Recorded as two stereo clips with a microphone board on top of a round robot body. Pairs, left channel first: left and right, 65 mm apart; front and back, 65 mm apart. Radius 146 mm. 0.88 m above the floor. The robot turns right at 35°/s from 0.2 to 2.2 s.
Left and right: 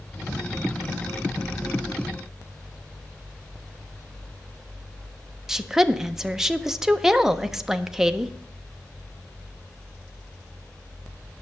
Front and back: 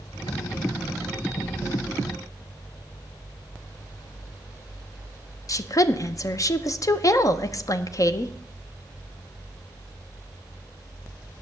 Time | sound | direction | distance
5.5 | a woman speaking | 5° right | 0.8 m